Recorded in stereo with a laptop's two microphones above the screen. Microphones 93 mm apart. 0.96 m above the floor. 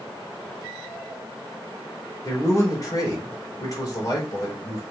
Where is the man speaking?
40° left (ahead or behind), 4 m.